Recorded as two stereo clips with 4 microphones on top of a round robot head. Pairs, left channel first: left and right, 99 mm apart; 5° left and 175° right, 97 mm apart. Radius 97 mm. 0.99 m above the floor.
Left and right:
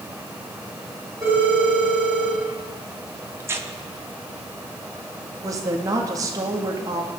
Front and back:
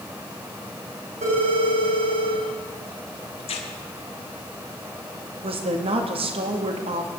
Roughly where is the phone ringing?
Behind right.